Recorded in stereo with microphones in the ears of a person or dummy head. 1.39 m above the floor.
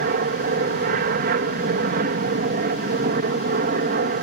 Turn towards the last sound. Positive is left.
turn(degrees=-50)  # may be behind; listen again after turning